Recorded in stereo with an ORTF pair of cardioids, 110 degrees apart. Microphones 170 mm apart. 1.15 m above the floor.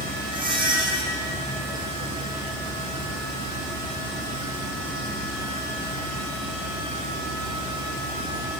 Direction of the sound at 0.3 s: 30° right.